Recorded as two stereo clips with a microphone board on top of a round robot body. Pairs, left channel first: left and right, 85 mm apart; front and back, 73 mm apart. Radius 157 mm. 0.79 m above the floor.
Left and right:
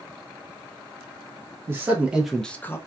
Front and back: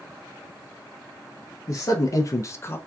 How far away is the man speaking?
About 0.8 m.